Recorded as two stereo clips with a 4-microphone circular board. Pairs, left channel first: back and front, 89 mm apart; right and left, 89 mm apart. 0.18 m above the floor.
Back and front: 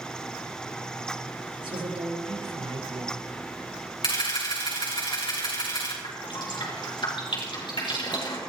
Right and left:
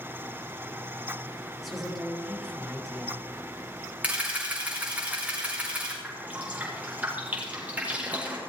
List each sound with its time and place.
1.6 s a woman speaking: straight ahead, 4.5 m
4.0 s a camera shutter: 160° left, 5 m
6.0 s dripping: 160° left, 5 m